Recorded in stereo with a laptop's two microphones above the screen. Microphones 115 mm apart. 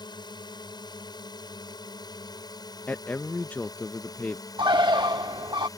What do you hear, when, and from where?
0.0 s a drone: 40° left (ahead or behind); by 5.8 s 35° left (ahead or behind)
2.9 s a man speaking: 15° left (ahead or behind)
4.6 s a bird: 45° right (ahead or behind)